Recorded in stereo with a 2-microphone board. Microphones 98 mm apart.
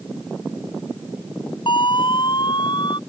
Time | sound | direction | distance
1.7 | a siren | 55° left (ahead or behind) | ?